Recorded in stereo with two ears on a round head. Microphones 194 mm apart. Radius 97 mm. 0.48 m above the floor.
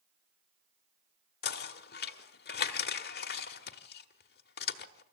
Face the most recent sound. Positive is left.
turn(degrees=50)  # may be behind; listen again after turning